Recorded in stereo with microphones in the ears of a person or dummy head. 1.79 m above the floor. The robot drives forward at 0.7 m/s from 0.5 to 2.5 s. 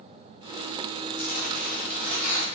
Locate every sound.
1.2 s tearing paper: 55° left (ahead or behind), 2.5 m; by 2.5 s 40° left (ahead or behind), 3 m